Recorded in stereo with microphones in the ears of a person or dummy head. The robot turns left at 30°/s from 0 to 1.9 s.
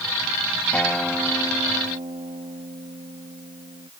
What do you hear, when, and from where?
0.7 s a guitar: 10° left; by 3.9 s 25° right